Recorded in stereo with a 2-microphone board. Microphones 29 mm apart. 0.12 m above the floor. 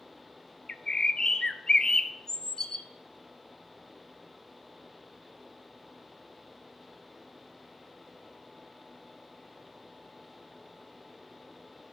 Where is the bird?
25° left (ahead or behind), 0.6 m.